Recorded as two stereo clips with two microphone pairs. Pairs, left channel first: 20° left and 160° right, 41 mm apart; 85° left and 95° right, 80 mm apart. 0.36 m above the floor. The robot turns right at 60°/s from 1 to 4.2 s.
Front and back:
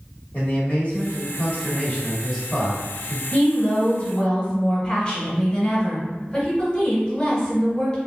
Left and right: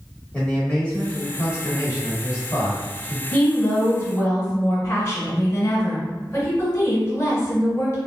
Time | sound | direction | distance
0.3 | a man speaking | 20° left | 1.4 m
3.3 | a woman speaking | 20° left | 1.4 m